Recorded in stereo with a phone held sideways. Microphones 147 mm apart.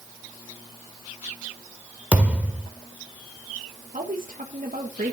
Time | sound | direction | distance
2.1 | a thud | 10° right (ahead or behind) | 1.6 m
3.9 | a woman speaking | 60° right (ahead or behind) | 1.6 m